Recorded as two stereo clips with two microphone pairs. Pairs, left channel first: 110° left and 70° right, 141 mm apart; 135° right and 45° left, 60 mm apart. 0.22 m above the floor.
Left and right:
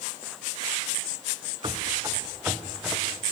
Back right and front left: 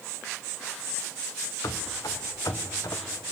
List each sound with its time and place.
1.6 s running footsteps: 125° right, 1.6 m; by 3.0 s 155° right, 2.5 m